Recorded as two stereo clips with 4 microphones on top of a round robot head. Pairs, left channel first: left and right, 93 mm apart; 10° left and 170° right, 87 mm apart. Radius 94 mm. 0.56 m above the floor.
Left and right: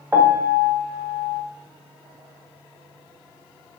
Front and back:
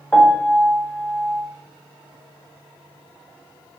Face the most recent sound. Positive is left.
turn(degrees=-50)